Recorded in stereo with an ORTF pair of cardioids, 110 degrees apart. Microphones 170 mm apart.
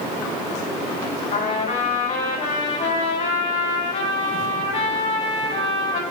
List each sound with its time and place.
1.3 s a trumpet: 40° left, 3 m